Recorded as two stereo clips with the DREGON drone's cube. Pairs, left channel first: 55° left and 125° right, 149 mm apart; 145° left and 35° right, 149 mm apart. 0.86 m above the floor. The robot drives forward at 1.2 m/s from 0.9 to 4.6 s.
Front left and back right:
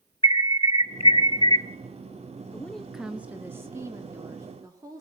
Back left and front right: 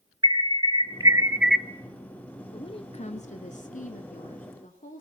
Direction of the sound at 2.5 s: 120° left.